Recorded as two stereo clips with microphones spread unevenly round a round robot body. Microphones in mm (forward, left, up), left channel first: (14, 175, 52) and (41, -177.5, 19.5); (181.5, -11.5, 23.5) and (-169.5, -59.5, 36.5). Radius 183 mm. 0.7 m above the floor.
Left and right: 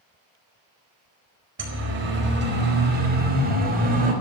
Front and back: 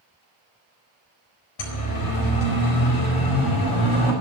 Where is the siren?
30° right, 4.5 m; by 4.1 s 15° right, 5.5 m.